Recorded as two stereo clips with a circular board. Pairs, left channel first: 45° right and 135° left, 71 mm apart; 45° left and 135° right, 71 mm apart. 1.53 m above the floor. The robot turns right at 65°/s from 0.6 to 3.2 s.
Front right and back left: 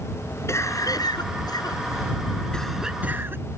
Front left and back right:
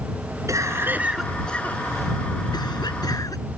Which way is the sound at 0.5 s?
90° right.